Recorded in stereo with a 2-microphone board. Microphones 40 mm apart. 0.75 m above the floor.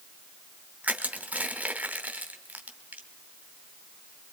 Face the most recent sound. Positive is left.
turn(degrees=-40)  # may be behind; listen again after turning